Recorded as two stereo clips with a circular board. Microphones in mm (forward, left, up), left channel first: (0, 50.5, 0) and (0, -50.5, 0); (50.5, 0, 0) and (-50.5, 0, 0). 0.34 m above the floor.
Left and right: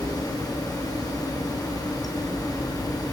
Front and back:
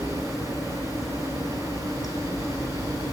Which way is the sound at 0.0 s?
50° left.